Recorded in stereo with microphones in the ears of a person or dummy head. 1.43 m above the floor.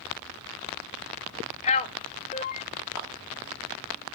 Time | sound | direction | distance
1.6 | a man speaking | 30° left (ahead or behind) | 0.6 m
3.0 | a clap | 10° right (ahead or behind) | 2 m